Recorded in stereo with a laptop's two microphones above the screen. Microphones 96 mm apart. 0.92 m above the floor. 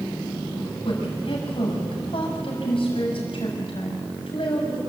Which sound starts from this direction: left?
A woman speaking, at 0.8 s.